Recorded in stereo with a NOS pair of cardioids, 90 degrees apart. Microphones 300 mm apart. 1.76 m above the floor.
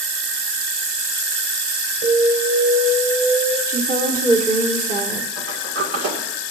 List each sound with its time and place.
2.0 s an alarm: 30° right, 4.5 m
3.7 s a woman speaking: 25° right, 2 m
5.4 s a sliding door: 55° right, 2.5 m